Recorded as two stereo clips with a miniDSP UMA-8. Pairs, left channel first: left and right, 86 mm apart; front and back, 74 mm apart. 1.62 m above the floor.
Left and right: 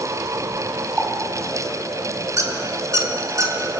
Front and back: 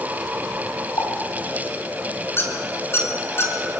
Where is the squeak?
50° right, 2.5 m.